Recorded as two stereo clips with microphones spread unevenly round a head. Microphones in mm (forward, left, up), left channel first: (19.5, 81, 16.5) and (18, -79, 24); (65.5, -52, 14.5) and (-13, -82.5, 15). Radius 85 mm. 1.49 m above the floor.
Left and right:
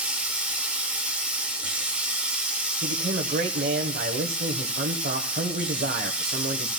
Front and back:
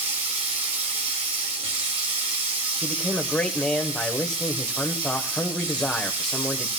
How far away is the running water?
About 1.9 m.